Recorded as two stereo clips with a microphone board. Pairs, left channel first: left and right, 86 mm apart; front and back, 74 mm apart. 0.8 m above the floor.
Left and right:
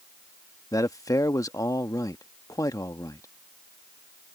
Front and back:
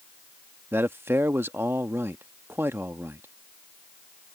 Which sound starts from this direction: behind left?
A man speaking, at 0.7 s.